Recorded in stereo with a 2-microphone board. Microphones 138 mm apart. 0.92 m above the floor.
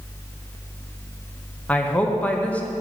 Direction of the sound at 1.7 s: 10° left (ahead or behind).